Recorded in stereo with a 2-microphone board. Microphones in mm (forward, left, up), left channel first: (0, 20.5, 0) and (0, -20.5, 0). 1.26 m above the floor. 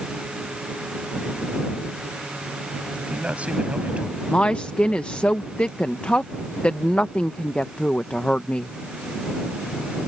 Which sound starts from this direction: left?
A woman speaking, at 4.3 s.